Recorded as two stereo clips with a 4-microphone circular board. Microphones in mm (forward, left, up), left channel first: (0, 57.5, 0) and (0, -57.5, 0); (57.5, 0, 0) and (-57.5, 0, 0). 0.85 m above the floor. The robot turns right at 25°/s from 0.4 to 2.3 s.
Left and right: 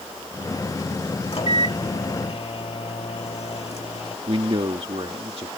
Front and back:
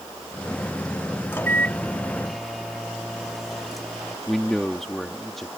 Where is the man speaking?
85° right.